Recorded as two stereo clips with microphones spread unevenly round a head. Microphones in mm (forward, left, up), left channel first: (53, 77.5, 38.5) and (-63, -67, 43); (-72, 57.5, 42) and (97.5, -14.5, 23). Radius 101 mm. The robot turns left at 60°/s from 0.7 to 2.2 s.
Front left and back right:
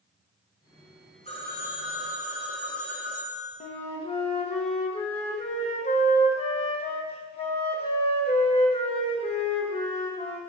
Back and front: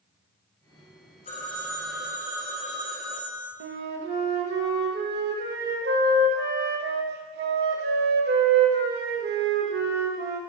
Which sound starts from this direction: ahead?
A flute, at 3.6 s.